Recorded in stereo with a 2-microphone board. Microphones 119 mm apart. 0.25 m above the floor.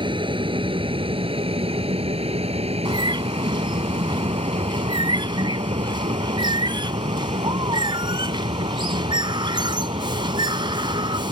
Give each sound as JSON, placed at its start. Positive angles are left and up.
{"t": 0.0, "sound": "an aircraft", "side_deg": -45}
{"t": 2.9, "sound": "a bird", "side_deg": -45}